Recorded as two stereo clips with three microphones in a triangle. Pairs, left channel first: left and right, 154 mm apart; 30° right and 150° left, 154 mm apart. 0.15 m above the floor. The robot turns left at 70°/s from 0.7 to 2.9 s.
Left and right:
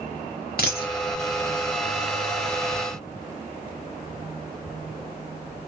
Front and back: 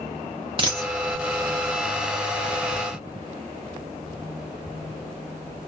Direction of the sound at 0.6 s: 95° left.